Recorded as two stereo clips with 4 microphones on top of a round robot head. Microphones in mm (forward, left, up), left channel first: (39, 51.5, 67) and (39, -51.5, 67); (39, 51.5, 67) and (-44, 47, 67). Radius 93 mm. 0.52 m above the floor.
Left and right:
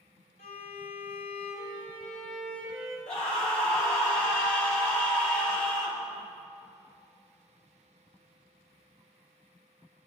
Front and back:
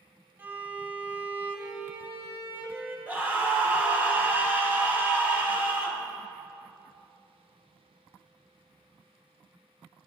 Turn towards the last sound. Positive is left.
turn(degrees=115)